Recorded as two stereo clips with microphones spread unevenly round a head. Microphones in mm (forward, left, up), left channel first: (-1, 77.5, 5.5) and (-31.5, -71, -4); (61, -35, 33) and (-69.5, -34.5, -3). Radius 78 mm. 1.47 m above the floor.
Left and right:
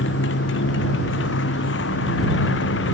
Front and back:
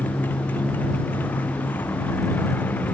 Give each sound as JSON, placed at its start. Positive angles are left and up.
{"t": 0.0, "sound": "a motorcycle", "azimuth_deg": 80}